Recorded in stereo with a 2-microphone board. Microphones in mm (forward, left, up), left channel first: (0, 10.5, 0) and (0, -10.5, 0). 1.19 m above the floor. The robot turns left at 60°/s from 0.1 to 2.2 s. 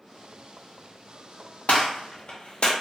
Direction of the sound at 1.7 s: 75° left (ahead or behind).